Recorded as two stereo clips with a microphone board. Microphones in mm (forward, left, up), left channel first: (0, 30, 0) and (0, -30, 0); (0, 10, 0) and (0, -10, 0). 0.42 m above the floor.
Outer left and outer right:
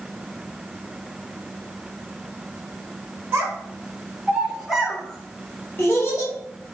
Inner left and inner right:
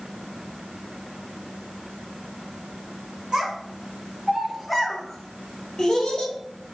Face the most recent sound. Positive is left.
turn(degrees=50)  # may be behind; listen again after turning